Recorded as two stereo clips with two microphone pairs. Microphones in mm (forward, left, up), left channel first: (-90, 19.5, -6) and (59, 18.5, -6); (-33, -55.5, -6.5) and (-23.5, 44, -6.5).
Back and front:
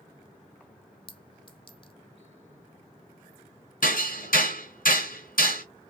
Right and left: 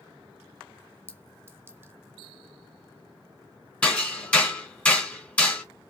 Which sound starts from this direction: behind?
Hammering, at 3.8 s.